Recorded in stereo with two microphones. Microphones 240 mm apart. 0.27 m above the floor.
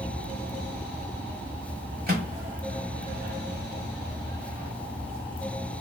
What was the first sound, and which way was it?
A microwave, 40° right (ahead or behind).